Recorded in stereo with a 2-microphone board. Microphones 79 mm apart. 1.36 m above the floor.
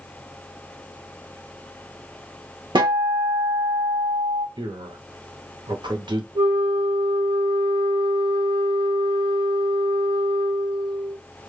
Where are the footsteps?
No footsteps in this recording.